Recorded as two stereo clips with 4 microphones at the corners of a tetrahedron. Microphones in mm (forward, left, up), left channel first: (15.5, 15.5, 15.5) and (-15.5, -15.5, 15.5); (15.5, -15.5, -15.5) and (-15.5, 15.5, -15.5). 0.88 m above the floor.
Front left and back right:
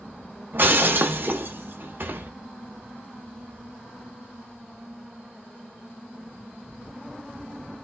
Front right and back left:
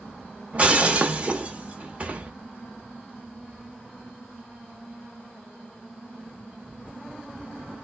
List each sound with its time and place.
0.5 s breaking glass: 170° right, 0.8 m